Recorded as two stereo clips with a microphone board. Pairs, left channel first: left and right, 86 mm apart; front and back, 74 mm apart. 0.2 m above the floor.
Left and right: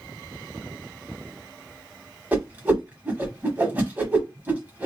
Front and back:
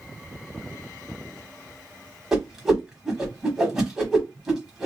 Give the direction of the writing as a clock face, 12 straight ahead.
No writing in this recording.